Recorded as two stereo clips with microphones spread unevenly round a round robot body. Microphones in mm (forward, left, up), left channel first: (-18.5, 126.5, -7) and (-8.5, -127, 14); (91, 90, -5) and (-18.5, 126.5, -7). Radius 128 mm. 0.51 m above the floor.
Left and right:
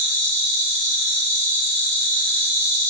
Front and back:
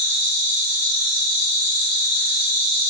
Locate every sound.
0.0 s an insect: 175° left, 0.9 m